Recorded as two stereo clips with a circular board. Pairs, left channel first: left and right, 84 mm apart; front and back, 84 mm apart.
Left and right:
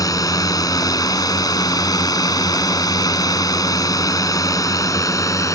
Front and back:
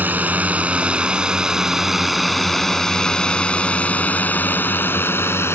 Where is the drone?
115° left; by 5.5 s 55° left.